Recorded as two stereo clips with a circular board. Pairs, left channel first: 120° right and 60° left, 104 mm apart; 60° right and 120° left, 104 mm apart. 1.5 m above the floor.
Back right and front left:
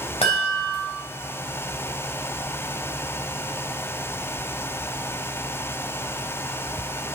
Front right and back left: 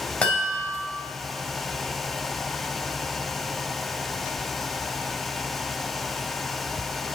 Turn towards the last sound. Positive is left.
turn(degrees=-140)